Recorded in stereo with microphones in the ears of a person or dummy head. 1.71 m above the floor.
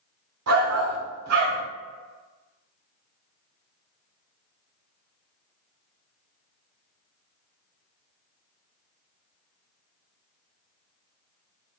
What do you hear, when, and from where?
0.5 s a shout: 75° right (ahead or behind), 0.9 m